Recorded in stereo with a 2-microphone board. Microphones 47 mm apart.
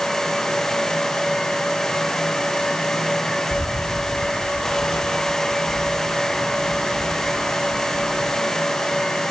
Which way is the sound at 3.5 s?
80° left.